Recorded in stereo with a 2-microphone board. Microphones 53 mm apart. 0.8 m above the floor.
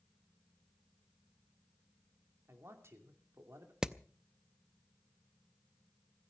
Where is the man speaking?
55° right (ahead or behind), 2.5 m.